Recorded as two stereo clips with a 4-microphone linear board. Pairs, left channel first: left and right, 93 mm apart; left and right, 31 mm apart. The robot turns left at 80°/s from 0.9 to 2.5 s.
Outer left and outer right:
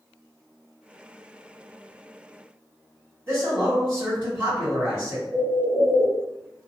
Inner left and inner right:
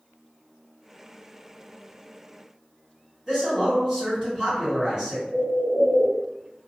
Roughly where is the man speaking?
Centre.